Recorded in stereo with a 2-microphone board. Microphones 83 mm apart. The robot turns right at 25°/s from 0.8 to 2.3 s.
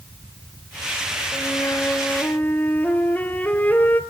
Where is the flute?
40° left (ahead or behind), 2.5 m; by 4.0 s 20° left (ahead or behind), 2.5 m.